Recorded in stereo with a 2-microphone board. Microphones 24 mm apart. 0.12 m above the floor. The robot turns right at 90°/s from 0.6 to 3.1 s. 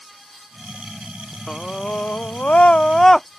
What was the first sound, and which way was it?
A scream, 20° left.